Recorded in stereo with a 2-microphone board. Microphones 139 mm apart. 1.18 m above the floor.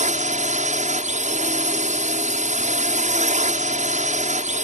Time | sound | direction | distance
0.0 | a drone | 60° right (ahead or behind) | ?